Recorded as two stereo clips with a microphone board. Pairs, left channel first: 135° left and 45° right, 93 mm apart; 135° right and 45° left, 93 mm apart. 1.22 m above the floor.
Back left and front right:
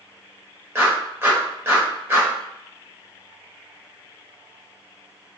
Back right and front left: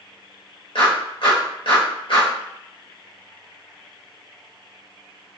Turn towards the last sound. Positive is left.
turn(degrees=-110)